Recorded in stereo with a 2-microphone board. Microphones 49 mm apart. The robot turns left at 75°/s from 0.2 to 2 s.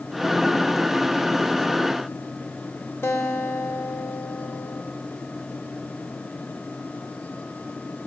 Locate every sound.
3.0 s a guitar: 65° left (ahead or behind), 3 m